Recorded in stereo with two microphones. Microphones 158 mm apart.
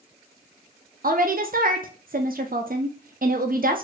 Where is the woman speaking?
60° right (ahead or behind), 0.5 m.